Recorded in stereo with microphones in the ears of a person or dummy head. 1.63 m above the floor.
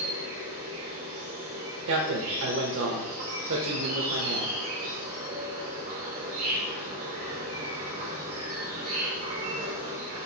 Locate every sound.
0.0 s an insect: 55° right (ahead or behind), 1.7 m
1.9 s a man speaking: 65° right (ahead or behind), 0.6 m